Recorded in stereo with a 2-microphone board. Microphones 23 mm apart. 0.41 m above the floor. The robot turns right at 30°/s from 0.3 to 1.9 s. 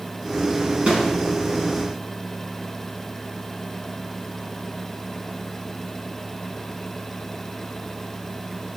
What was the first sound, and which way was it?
A snare drum, 70° right (ahead or behind).